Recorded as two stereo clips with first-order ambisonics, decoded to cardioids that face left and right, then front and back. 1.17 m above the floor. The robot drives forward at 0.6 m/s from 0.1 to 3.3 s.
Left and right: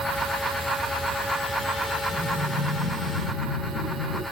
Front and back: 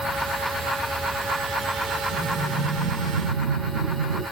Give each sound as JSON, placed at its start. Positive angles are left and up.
{"t": 2.1, "sound": "breathing", "azimuth_deg": 175, "distance_m": 4.5}